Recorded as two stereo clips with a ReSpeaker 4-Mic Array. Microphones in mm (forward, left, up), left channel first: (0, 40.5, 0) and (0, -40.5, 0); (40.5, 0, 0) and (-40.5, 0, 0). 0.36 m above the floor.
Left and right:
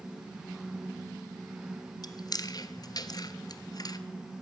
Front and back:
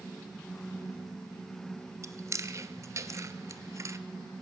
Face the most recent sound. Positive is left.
turn(degrees=130)